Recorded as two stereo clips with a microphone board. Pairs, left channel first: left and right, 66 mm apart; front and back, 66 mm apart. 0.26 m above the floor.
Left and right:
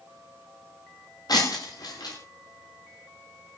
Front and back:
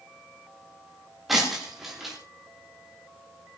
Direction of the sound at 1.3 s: 95° left.